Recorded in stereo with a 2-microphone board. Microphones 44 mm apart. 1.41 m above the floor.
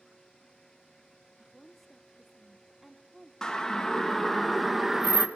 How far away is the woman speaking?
About 0.9 m.